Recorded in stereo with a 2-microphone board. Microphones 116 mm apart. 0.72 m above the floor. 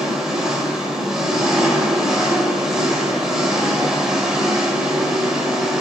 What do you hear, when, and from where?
0.0 s an engine running: 5° right (ahead or behind), 2.0 m